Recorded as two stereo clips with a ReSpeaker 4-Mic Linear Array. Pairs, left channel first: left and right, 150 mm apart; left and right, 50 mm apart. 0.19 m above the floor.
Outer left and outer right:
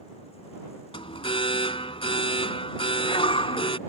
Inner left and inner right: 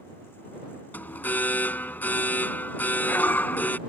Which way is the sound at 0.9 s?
40° left (ahead or behind).